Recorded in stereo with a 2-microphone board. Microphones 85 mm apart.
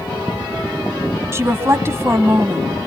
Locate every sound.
1.3 s a woman speaking: 30° right (ahead or behind), 1.3 m